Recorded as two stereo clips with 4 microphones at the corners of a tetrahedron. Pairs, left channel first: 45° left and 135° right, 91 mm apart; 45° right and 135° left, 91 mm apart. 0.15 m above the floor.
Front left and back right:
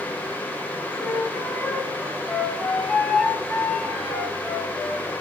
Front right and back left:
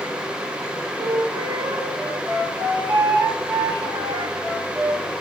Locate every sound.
1.0 s a flute: 125° left, 2.5 m